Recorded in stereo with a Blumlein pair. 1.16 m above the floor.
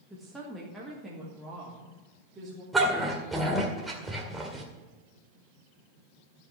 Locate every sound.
0.1 s a woman speaking: 5° right, 1.6 m; by 2.6 s 15° right, 3 m
2.7 s a dog barking: 10° right, 1.9 m